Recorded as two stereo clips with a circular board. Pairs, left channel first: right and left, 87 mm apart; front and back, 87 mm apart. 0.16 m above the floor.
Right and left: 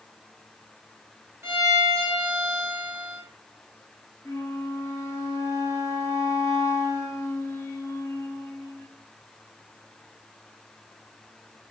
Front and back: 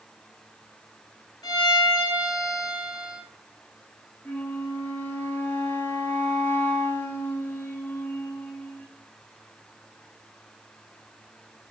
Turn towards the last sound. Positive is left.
turn(degrees=-55)